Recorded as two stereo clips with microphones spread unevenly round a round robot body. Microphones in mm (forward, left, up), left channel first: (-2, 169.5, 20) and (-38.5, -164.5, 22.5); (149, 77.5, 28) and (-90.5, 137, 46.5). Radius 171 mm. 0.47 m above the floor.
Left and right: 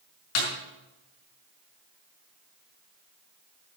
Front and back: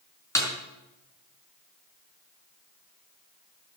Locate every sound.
0.3 s a snare drum: 65° left, 5.5 m